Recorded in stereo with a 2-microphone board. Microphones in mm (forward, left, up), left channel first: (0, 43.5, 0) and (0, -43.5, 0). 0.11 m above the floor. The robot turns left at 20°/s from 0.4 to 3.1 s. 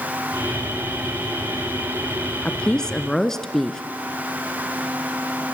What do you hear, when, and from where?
2.5 s a woman speaking: 10° left (ahead or behind), 1.2 m; by 3.8 s 5° left (ahead or behind), 1.2 m